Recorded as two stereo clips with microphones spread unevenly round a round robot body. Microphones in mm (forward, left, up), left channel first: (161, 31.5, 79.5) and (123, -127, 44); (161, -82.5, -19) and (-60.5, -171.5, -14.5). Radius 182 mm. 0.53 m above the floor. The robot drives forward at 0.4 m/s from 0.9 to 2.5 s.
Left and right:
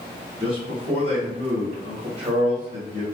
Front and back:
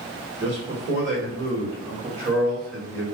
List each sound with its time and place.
0.4 s a man speaking: 130° right, 1.4 m; by 3.0 s 150° right, 1.8 m